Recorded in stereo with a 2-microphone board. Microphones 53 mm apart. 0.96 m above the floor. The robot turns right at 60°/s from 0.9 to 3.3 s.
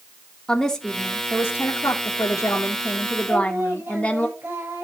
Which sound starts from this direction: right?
Singing, at 3.3 s.